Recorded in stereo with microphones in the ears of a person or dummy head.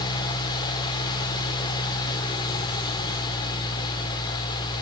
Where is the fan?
30° left (ahead or behind), 1.5 m.